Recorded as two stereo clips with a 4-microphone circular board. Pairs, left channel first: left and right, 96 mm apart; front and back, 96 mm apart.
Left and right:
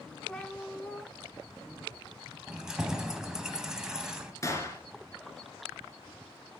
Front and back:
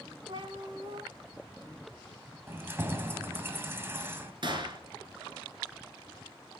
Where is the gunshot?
145° left, 1.3 m.